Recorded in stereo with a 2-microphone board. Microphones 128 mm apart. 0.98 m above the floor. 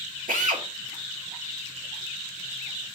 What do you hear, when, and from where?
0.3 s a drill: 80° right, 1.9 m